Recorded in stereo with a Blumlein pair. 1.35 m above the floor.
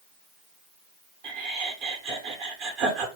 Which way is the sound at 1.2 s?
40° right.